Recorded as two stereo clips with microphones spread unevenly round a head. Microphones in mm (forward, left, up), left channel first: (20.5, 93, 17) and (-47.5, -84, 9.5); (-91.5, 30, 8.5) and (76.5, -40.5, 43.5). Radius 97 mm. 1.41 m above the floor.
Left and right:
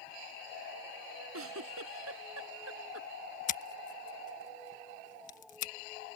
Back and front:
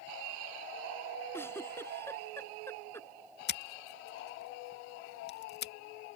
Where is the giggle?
125° right.